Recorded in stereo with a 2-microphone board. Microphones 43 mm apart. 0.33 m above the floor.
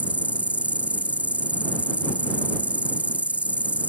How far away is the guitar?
No guitar in this recording.